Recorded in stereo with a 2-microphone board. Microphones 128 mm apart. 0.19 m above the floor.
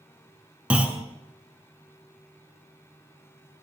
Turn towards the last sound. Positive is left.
turn(degrees=-10)  # may be behind; listen again after turning